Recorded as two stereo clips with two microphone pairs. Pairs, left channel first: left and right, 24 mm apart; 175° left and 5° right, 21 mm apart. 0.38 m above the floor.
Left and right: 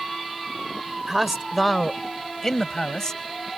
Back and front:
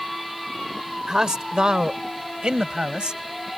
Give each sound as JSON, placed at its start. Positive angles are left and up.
{"t": 1.1, "sound": "a man speaking", "azimuth_deg": -25}